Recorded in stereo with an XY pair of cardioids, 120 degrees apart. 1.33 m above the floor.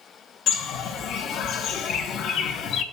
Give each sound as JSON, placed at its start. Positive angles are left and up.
{"t": 0.5, "sound": "a bird", "azimuth_deg": 65, "distance_m": 0.8}